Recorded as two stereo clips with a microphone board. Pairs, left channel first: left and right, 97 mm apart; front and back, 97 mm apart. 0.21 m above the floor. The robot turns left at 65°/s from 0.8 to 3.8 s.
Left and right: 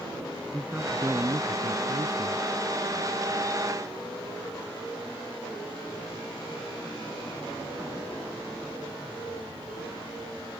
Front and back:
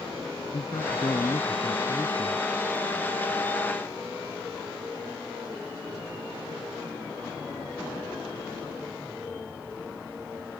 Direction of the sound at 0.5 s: 15° right.